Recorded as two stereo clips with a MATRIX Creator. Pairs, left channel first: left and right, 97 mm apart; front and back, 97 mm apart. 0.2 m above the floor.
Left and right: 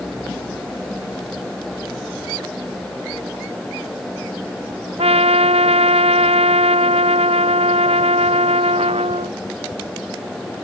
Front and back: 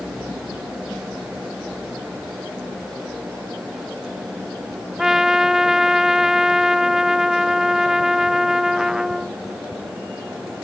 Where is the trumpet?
95° right.